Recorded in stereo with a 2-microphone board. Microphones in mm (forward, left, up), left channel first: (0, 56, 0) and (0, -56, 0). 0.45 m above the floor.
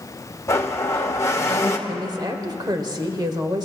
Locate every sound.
0.5 s a blender: 25° left (ahead or behind), 1.1 m
1.9 s a woman speaking: 40° right (ahead or behind), 1.3 m